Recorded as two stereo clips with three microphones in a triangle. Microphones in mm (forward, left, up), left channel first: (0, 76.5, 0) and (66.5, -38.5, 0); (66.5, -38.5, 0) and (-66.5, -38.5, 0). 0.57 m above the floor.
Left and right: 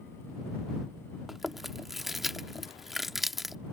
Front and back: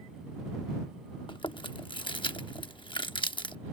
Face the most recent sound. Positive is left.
turn(degrees=25)